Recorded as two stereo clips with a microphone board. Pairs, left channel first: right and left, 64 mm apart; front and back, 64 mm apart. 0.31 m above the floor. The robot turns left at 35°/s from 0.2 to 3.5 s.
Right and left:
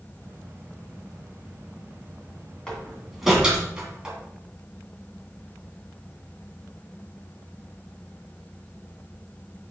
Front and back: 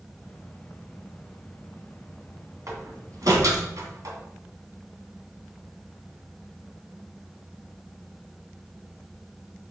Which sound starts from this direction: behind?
A door slam, at 2.7 s.